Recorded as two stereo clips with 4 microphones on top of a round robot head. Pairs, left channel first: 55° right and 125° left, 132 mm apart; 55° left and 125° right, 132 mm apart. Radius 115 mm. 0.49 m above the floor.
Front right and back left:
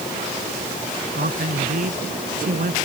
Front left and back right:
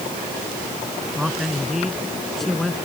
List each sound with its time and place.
1.1 s a man speaking: 150° left; by 2.8 s 140° left